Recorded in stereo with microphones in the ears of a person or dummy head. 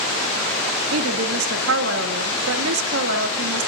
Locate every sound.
0.9 s a woman speaking: 70° right (ahead or behind), 2.5 m